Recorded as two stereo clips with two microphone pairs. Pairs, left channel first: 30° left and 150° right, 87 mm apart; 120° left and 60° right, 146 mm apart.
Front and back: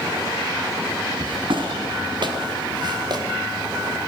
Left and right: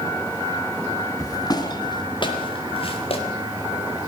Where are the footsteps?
175° right, 3.5 m; by 3.2 s 170° left, 4.5 m.